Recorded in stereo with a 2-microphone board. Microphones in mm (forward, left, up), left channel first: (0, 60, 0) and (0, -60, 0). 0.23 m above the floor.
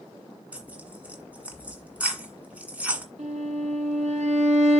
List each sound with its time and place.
0.5 s tearing paper: 10° right (ahead or behind), 1.7 m
3.2 s a violin: 70° right (ahead or behind), 1.2 m